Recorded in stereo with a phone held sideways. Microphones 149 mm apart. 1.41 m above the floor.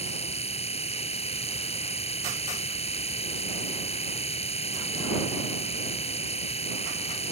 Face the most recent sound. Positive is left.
turn(degrees=45)  # may be behind; listen again after turning